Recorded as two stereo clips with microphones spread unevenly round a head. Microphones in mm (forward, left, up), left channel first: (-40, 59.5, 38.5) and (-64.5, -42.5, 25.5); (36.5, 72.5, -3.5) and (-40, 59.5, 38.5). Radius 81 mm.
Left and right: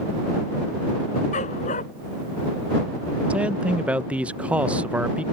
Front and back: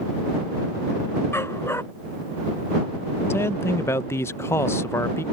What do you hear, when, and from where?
1.3 s a dog barking: 75° left
3.3 s a man speaking: 30° right